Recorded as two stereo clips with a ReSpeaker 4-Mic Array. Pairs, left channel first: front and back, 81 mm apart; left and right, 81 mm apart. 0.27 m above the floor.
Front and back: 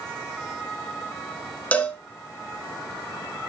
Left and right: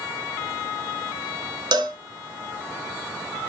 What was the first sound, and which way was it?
A cowbell, 70° right.